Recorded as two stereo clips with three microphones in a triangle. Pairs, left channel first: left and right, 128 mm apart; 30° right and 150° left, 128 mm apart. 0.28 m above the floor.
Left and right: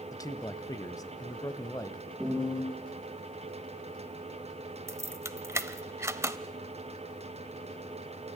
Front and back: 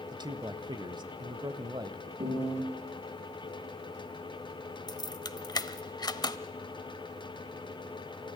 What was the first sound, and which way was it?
A man speaking, 130° left.